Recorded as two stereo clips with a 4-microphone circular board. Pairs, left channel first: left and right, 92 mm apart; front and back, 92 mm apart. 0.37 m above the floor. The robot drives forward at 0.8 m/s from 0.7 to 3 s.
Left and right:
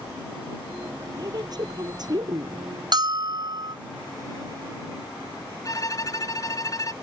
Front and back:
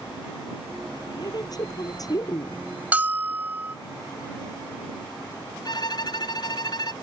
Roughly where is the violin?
Ahead left.